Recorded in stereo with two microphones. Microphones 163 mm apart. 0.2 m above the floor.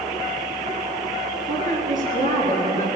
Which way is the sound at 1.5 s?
50° right (ahead or behind).